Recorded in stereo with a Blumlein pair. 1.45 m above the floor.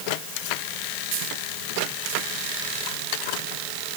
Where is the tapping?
No tapping in this recording.